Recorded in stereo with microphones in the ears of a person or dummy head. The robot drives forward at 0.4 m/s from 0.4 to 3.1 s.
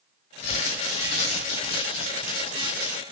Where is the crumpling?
30° left (ahead or behind), 1.3 m; by 3.0 s 20° left (ahead or behind), 2 m.